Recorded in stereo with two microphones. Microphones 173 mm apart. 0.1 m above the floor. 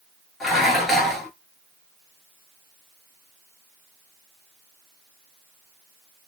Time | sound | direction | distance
0.4 | dishes clattering | centre (ahead or behind) | 1.2 m